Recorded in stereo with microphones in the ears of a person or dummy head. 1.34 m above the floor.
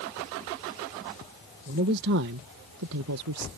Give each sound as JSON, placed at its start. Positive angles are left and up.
{"t": 1.7, "sound": "a man speaking", "side_deg": -50}